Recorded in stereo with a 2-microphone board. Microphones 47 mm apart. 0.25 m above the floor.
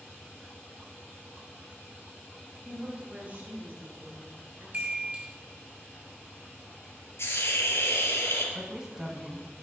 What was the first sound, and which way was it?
A woman speaking, 20° right (ahead or behind).